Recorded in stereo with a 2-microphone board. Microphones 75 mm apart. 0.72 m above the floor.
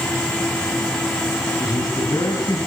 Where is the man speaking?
55° left (ahead or behind), 5 m.